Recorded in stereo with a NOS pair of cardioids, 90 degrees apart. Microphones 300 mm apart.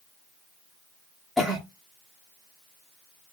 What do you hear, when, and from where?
1.4 s a cough: straight ahead, 0.7 m